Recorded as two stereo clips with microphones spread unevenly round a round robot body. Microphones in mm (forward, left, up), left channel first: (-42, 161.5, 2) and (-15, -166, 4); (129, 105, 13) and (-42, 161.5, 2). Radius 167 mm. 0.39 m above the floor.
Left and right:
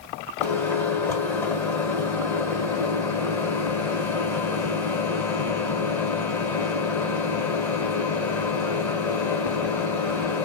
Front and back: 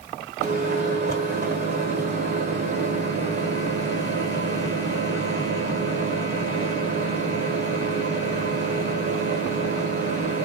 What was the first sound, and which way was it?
A microwave, 175° left.